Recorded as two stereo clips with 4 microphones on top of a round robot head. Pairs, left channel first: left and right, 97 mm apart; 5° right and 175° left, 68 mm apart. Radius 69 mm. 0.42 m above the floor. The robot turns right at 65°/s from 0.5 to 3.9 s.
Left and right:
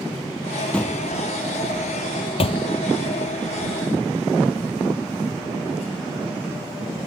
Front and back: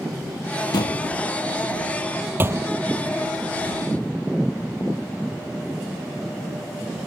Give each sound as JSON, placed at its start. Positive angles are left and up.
{"t": 0.7, "sound": "a door slam", "azimuth_deg": 5}